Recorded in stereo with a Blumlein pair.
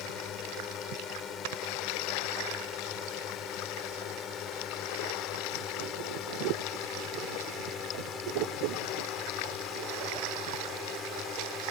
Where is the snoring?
50° right.